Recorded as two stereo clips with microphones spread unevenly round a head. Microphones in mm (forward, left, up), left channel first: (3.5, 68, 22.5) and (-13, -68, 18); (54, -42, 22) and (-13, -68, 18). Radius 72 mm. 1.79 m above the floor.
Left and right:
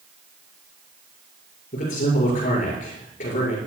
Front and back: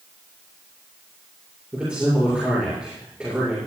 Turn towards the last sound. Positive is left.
turn(degrees=120)